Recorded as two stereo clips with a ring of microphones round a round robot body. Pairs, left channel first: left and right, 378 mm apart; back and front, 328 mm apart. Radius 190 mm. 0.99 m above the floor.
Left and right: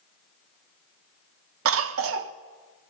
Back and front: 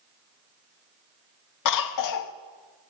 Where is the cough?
145° right, 0.5 m.